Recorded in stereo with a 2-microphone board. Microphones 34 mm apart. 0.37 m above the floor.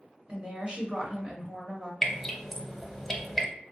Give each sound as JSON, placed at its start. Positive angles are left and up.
{"t": 0.3, "sound": "a woman speaking", "side_deg": -35, "distance_m": 1.3}
{"t": 2.0, "sound": "dripping", "side_deg": 5, "distance_m": 0.6}